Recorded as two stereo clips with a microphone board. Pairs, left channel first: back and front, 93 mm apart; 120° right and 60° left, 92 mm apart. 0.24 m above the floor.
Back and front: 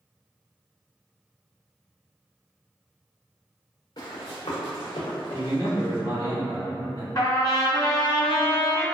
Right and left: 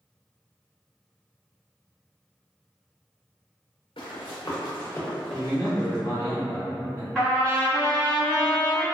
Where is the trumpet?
165° left, 1.8 m.